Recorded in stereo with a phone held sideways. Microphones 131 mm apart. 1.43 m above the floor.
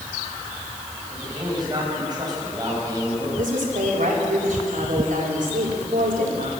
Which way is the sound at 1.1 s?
30° right (ahead or behind).